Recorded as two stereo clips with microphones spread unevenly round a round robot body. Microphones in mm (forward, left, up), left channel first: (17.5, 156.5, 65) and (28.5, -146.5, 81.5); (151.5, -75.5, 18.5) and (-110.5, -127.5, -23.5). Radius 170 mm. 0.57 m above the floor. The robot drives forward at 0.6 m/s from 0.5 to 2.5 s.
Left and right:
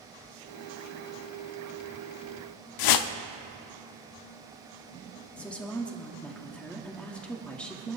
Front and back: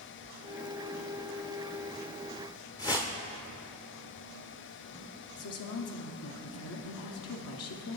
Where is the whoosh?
95° left, 0.6 m.